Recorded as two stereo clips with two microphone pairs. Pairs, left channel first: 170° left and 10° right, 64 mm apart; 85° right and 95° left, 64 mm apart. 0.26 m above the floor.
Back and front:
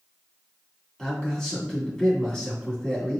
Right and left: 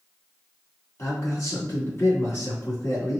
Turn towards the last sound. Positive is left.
turn(degrees=-115)